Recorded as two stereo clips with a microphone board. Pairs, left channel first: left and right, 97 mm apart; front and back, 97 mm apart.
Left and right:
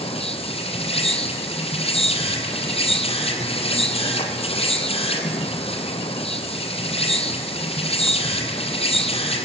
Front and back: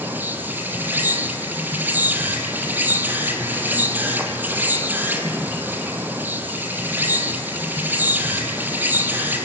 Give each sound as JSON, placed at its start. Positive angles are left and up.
{"t": 0.0, "sound": "an insect", "azimuth_deg": 105, "distance_m": 2.0}